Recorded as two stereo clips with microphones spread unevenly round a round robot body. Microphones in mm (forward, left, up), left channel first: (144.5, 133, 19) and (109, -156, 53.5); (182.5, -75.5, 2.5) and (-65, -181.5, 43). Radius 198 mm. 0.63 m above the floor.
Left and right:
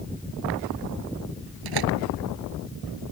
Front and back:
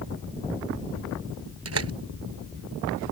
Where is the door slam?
125° right.